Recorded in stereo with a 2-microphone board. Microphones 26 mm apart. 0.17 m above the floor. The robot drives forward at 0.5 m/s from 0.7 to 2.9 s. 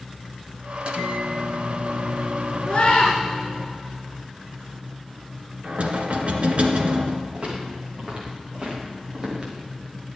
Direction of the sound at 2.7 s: 45° left (ahead or behind).